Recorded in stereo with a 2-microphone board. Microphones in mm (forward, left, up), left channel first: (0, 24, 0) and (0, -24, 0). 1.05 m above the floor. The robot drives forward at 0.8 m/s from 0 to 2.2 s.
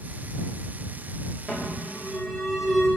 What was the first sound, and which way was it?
An alarm, 5° right (ahead or behind).